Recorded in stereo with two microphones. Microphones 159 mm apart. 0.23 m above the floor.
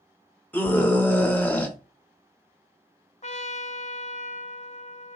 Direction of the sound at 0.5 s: 10° left (ahead or behind).